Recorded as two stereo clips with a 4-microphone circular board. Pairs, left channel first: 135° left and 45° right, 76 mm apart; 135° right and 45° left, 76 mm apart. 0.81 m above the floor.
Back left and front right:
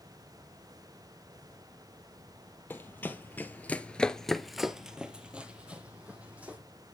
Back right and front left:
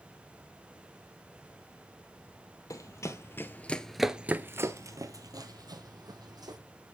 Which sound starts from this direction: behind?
Running footsteps, at 2.7 s.